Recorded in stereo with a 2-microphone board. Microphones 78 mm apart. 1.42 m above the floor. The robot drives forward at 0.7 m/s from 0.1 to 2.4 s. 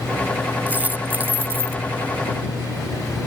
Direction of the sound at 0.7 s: 20° right (ahead or behind).